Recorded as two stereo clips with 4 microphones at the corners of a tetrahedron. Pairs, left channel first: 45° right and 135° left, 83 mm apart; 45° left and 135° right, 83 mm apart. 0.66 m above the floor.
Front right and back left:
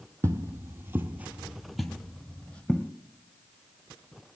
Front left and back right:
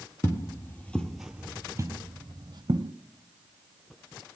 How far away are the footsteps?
About 1.0 m.